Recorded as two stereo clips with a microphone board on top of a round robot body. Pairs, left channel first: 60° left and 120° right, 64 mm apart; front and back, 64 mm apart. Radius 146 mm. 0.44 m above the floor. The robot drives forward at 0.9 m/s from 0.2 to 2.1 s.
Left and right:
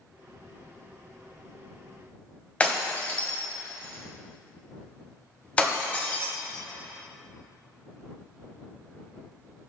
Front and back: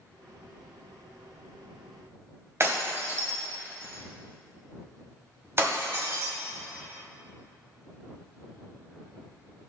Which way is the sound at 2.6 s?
130° left.